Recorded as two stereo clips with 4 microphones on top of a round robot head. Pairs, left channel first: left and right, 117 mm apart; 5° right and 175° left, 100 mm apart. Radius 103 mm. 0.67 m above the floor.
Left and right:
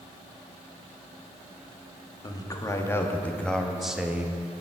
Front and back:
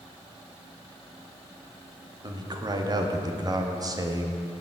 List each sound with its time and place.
2.2 s a man speaking: 140° left, 1.7 m; by 4.4 s 150° right, 1.3 m